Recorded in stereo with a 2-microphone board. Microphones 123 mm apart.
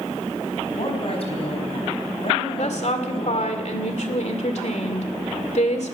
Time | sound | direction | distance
0.7 | a woman speaking | 50° left (ahead or behind) | 4.5 m
2.6 | a woman speaking | 65° left (ahead or behind) | 2 m